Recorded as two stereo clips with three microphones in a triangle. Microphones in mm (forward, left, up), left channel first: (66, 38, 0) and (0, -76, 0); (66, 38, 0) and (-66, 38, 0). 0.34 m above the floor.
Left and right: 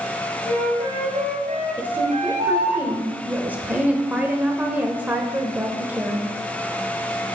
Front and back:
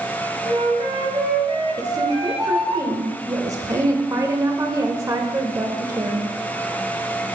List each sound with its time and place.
0.5 s a flute: 135° right, 1.5 m
1.8 s a woman speaking: straight behind, 0.9 m